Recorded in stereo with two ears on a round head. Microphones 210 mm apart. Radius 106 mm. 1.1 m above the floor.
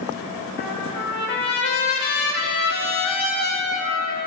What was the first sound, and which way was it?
A trumpet, 45° left (ahead or behind).